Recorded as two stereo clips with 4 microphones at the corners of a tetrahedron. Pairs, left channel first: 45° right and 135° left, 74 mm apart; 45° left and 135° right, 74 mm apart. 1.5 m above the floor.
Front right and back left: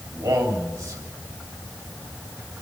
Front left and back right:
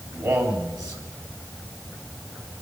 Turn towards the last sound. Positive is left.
turn(degrees=-175)